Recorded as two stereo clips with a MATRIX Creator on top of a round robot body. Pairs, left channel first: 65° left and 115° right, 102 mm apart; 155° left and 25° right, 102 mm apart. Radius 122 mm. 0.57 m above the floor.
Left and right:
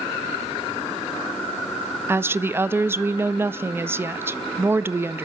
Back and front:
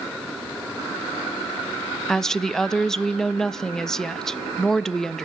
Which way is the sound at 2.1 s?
125° right.